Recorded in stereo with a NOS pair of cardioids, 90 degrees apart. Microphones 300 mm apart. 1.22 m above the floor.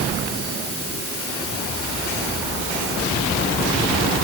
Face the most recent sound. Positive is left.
No sound to turn to.